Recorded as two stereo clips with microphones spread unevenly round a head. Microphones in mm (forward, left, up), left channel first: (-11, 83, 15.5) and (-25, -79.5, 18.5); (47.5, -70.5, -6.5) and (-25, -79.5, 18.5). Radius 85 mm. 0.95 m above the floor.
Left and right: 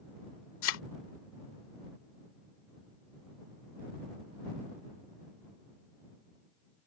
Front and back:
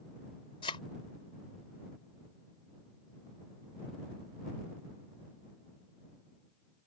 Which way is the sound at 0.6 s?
65° left.